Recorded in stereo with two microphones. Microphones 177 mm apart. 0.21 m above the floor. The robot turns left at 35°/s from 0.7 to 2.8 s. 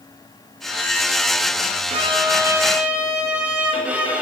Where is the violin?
140° right, 0.9 m; by 4.2 s 170° right, 0.9 m.